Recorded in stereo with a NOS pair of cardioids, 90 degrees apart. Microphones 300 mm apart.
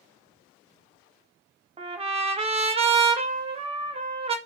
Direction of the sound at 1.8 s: 20° right.